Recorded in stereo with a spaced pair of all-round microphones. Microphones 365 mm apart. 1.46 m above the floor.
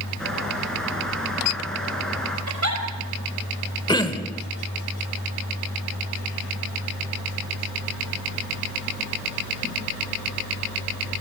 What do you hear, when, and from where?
0.2 s a bird: centre (ahead or behind), 4.5 m
2.5 s a giggle: 50° right (ahead or behind), 5 m
3.9 s throat clearing: 10° left (ahead or behind), 1.2 m